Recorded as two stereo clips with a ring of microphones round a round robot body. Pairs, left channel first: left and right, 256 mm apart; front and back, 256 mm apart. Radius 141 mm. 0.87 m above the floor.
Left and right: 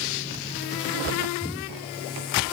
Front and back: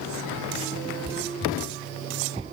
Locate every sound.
Only background noise.